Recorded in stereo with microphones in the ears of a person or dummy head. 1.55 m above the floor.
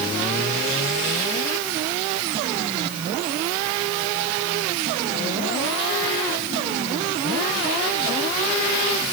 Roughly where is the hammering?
I don't hear hammering.